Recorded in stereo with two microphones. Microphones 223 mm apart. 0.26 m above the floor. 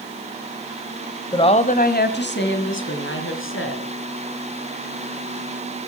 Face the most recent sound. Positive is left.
turn(degrees=70)  # may be behind; listen again after turning